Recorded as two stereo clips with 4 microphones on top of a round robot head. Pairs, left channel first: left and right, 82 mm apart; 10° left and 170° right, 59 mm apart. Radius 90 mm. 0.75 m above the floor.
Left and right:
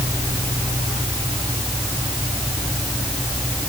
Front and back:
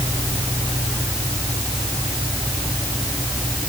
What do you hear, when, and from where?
Only background noise.